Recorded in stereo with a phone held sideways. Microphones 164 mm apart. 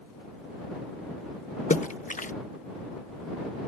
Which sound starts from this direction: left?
A splash, at 1.7 s.